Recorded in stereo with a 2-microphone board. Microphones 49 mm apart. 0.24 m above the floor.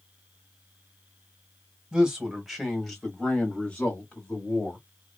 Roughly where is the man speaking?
Centre.